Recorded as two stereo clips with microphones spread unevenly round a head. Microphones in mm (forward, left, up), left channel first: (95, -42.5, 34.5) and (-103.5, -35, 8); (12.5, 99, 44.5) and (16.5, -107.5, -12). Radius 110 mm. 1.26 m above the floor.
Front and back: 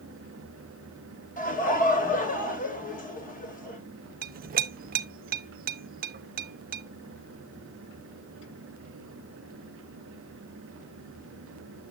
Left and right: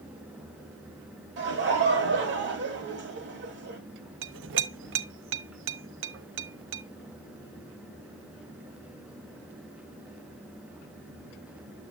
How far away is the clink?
About 0.5 m.